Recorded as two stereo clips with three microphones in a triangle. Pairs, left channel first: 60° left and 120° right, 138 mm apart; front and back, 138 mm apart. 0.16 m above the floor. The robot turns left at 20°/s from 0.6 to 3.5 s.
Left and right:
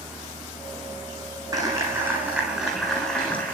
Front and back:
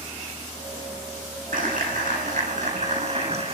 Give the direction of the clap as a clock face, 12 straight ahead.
6 o'clock.